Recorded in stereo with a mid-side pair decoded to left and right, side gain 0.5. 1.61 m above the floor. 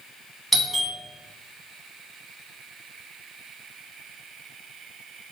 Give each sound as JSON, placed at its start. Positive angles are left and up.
{"t": 0.5, "sound": "a doorbell", "azimuth_deg": -5, "distance_m": 1.5}